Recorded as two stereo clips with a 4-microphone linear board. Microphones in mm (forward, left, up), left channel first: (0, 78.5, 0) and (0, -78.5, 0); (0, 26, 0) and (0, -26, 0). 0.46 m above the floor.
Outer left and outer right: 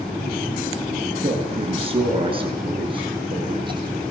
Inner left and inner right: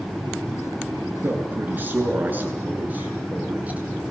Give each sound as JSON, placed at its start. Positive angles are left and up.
{"t": 1.2, "sound": "a man speaking", "side_deg": -35, "distance_m": 7.5}